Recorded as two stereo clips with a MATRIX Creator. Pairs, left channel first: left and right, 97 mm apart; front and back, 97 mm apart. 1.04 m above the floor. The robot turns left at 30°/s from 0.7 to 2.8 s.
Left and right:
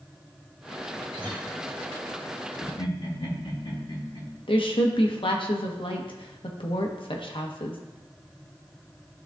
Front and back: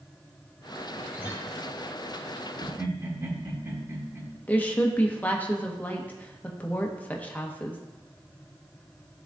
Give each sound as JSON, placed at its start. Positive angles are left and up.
{"t": 1.1, "sound": "a guitar", "azimuth_deg": -115, "distance_m": 2.0}
{"t": 2.6, "sound": "laughter", "azimuth_deg": 125, "distance_m": 2.0}
{"t": 4.5, "sound": "a woman speaking", "azimuth_deg": 70, "distance_m": 1.0}